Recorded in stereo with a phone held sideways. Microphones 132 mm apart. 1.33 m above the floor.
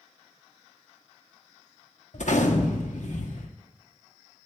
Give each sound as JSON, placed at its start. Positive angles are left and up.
{"t": 2.1, "sound": "a gunshot", "side_deg": 65, "distance_m": 0.9}